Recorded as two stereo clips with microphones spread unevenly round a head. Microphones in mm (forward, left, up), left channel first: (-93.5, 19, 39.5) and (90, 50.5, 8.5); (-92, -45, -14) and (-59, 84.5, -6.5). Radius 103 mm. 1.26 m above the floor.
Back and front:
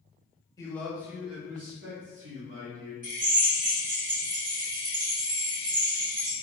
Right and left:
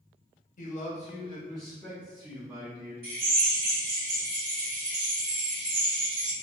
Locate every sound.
0.6 s a man speaking: 95° right, 1.1 m; by 2.9 s 5° left, 2.5 m
3.0 s a drill: 50° left, 1.8 m